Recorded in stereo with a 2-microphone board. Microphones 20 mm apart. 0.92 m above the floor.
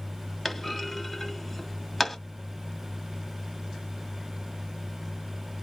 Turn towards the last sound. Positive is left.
turn(degrees=10)  # may be behind; listen again after turning